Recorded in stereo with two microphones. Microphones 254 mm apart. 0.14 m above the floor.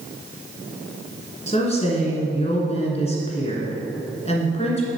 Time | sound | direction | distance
1.5 | a woman speaking | 25° left (ahead or behind) | 1.8 m